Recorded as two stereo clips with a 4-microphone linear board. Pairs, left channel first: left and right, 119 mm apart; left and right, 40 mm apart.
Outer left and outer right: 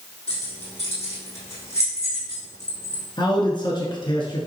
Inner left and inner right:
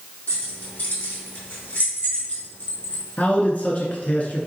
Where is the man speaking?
45° left (ahead or behind), 1.4 m.